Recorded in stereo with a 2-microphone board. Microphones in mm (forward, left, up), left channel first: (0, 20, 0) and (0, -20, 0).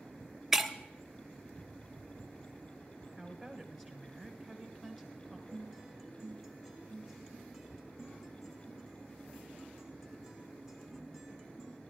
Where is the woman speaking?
5° left (ahead or behind), 2 m.